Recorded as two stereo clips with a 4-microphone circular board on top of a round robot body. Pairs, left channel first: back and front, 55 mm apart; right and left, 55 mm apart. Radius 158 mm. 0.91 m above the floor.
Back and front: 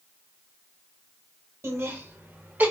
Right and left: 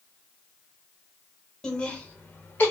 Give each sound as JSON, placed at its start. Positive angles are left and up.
{"t": 1.6, "sound": "laughter", "azimuth_deg": -15, "distance_m": 1.4}